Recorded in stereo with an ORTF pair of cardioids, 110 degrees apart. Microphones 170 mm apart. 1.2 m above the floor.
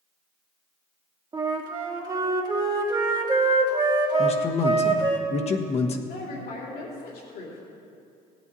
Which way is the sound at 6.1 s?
70° left.